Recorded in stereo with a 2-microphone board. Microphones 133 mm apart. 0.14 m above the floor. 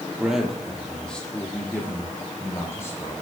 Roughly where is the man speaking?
Centre.